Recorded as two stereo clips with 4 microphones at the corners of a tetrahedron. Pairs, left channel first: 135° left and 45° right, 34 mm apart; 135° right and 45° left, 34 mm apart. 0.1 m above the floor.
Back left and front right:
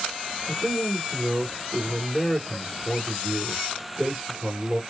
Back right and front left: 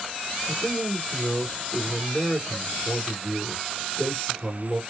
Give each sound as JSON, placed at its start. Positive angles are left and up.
{"t": 0.5, "sound": "a man speaking", "azimuth_deg": -55, "distance_m": 1.3}